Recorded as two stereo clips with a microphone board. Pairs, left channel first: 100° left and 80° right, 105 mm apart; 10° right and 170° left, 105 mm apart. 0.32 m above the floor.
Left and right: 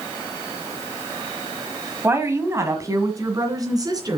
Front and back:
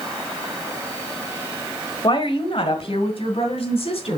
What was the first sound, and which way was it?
A woman speaking, 20° right.